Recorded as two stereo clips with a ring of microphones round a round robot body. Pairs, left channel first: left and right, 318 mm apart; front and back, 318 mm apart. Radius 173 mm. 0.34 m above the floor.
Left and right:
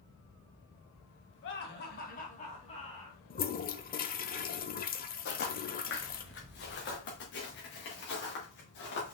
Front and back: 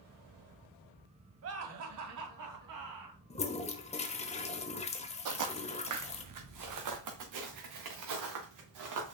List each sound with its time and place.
1.4 s laughter: 140° left, 1.8 m; by 3.2 s 170° left, 3 m
3.3 s a toilet flushing: 55° left, 1.0 m
5.2 s footsteps: 150° left, 1.1 m